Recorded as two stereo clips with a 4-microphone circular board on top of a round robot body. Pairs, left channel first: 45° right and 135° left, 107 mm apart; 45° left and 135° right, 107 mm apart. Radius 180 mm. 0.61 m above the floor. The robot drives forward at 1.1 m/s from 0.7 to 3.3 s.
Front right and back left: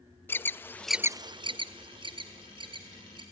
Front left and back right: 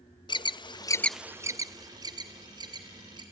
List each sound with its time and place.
0.3 s an alarm: 20° left, 0.6 m; by 3.2 s 175° left, 2.5 m